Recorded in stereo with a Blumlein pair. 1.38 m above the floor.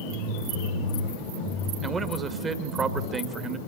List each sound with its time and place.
1.8 s a man speaking: 20° right, 2 m